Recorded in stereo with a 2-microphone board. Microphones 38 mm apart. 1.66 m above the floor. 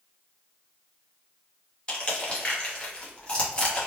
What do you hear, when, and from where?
1.9 s crushing: 25° left (ahead or behind), 0.9 m